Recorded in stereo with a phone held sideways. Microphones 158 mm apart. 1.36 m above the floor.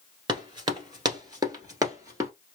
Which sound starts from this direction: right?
Running footsteps, at 0.3 s.